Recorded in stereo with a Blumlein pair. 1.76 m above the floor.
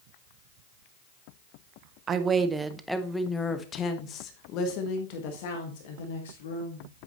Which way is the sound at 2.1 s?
25° right.